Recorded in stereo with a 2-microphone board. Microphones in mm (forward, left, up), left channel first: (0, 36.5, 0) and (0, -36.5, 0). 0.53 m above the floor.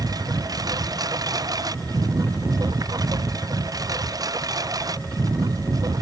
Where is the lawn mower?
60° right (ahead or behind); by 6.0 s 55° right (ahead or behind).